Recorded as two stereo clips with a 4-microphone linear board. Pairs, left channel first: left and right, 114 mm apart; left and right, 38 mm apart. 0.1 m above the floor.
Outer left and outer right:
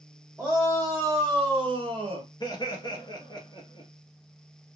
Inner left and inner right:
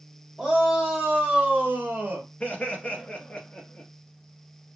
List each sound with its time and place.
0.4 s a shout: 10° right (ahead or behind), 1.5 m; by 2.3 s 45° right (ahead or behind), 1.8 m
2.4 s laughter: 35° left (ahead or behind), 1.6 m